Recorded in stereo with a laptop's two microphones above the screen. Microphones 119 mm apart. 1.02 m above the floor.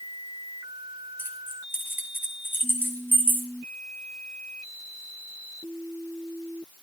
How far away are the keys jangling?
About 3.5 m.